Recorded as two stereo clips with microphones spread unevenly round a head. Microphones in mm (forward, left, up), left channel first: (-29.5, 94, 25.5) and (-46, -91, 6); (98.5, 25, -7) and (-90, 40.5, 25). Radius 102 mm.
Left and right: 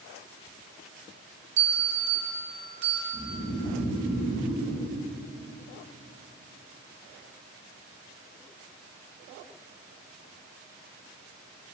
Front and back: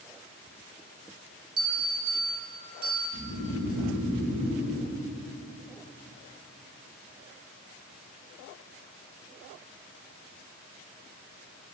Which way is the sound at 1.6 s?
120° right.